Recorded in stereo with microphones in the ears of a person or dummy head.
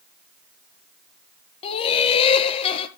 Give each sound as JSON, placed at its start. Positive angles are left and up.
{"t": 1.6, "sound": "laughter", "side_deg": 35, "distance_m": 1.5}